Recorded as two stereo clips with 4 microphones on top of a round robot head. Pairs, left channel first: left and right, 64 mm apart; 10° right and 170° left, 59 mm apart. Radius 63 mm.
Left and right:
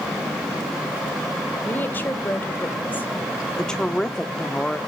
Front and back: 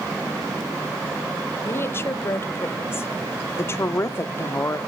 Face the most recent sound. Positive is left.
turn(degrees=15)